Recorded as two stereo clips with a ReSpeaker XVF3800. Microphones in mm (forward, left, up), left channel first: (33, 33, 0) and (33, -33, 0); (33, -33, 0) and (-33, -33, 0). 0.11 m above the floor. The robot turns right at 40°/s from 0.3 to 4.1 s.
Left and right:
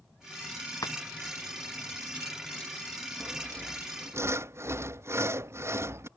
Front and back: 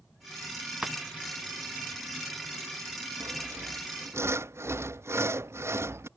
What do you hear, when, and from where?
0.8 s breaking glass: 100° left; by 1.0 s 105° left
3.2 s sawing: 170° right; by 6.1 s 135° right